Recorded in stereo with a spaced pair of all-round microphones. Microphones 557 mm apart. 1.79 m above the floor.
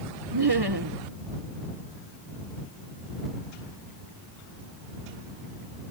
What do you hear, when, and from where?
0.3 s laughter: 45° right (ahead or behind)